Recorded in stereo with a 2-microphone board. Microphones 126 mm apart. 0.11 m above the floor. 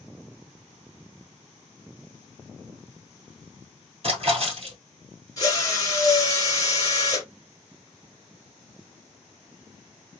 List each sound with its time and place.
4.0 s a splash: 50° right (ahead or behind), 1.8 m
5.4 s a drill: 30° left (ahead or behind), 1.8 m